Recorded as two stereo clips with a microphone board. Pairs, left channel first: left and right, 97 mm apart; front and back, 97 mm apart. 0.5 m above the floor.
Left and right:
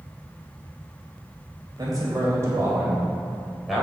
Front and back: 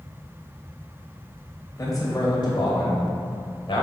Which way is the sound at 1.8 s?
50° right.